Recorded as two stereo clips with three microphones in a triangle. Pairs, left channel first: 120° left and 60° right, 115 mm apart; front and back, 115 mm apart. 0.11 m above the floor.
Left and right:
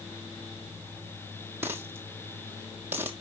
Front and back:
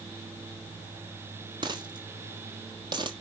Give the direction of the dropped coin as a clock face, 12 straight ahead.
4 o'clock.